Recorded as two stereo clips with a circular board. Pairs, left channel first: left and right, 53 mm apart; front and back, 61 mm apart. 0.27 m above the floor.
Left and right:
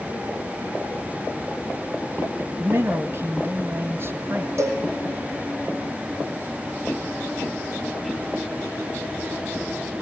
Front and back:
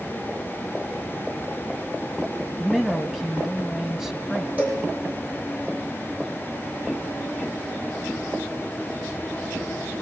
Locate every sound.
2.6 s a man speaking: 95° right, 2 m
4.6 s a cowbell: 115° right, 6 m